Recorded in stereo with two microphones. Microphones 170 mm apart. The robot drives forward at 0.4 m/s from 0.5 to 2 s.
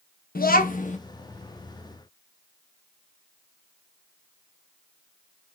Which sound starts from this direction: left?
A child speaking, at 0.3 s.